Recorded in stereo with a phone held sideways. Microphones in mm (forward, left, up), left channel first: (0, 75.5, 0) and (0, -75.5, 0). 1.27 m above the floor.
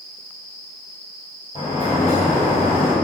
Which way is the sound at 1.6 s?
50° left (ahead or behind).